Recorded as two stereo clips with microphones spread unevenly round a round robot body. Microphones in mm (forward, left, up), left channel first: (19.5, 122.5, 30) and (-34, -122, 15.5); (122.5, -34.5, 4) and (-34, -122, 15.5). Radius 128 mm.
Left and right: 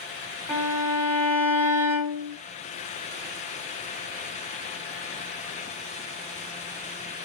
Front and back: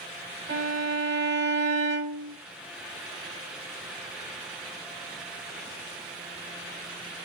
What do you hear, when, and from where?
0.5 s a violin: 160° left, 2.5 m